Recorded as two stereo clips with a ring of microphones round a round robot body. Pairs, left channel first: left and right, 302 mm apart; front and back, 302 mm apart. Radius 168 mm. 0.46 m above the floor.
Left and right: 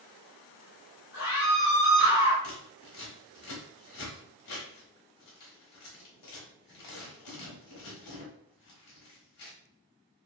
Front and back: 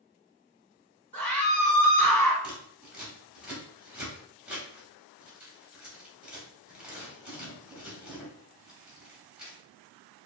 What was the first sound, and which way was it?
A scream, 85° left.